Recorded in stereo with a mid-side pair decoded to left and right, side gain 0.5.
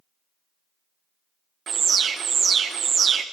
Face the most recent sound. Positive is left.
turn(degrees=-45)